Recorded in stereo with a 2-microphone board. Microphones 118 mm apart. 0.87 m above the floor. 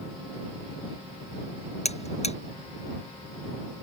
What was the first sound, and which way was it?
A buzzer, 60° left (ahead or behind).